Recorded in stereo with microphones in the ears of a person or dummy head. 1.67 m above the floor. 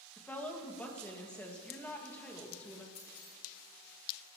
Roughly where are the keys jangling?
Left.